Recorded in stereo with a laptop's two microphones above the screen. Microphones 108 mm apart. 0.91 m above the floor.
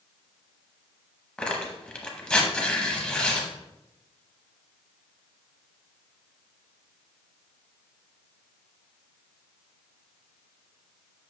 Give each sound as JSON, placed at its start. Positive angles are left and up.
{"t": 1.4, "sound": "tearing paper", "side_deg": 10, "distance_m": 0.8}